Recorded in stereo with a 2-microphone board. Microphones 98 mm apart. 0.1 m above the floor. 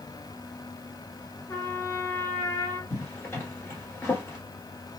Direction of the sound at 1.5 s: 25° left (ahead or behind).